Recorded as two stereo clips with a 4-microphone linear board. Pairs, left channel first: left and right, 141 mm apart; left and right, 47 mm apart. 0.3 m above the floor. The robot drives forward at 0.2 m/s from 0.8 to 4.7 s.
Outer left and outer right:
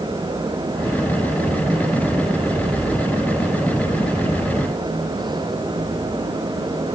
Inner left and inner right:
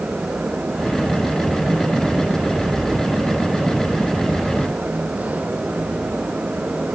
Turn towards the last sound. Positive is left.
No sound to turn to.